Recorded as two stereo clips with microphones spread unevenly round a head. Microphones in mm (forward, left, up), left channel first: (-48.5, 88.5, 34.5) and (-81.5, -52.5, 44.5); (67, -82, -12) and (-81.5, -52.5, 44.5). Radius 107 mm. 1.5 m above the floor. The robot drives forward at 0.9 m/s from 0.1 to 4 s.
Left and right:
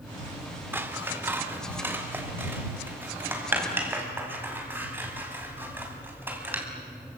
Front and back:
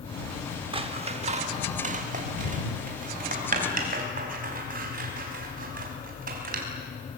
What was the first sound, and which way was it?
Scissors, 170° right.